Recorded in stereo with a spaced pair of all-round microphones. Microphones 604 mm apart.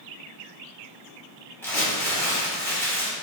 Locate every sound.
1.6 s crumpling: 5° left (ahead or behind), 1.2 m